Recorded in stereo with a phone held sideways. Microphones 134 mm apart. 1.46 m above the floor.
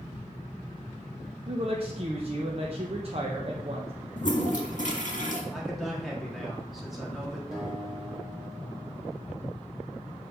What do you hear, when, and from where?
1.5 s a woman speaking: 45° right (ahead or behind), 0.9 m
4.2 s a toilet flushing: 70° left (ahead or behind), 1.6 m
5.5 s a man speaking: centre (ahead or behind), 2.5 m
7.5 s a guitar: centre (ahead or behind), 2.5 m